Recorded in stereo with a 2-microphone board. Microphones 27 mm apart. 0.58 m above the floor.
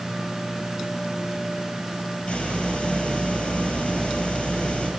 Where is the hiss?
45° left (ahead or behind), 7.5 m.